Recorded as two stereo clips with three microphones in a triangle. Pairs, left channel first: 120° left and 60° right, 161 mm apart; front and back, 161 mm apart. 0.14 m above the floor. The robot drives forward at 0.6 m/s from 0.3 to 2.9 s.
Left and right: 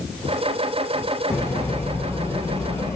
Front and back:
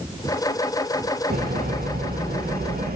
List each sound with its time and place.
1.3 s a bird: 165° right, 5 m; by 3.0 s 170° right, 6 m